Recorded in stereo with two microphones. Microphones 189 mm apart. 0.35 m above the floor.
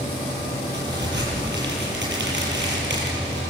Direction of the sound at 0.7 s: 65° right (ahead or behind).